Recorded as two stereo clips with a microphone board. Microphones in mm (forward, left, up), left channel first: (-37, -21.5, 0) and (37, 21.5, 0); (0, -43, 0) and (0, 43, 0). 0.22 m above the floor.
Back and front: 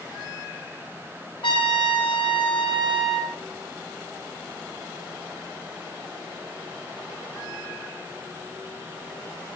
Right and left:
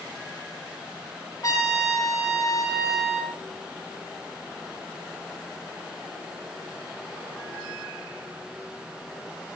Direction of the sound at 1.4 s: 135° right.